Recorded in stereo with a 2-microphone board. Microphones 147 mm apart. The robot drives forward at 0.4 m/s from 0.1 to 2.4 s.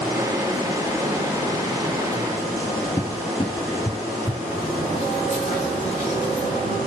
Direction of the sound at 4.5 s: 45° left (ahead or behind).